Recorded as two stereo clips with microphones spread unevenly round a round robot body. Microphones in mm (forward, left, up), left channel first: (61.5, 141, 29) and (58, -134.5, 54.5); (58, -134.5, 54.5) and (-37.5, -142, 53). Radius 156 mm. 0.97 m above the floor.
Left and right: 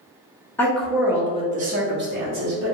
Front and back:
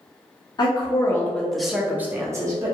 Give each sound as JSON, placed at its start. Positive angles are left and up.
{"t": 0.6, "sound": "a woman speaking", "azimuth_deg": 20, "distance_m": 0.8}